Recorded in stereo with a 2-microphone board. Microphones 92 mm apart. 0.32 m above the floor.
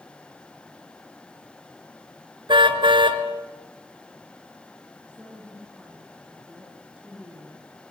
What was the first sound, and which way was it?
A car horn, 65° right (ahead or behind).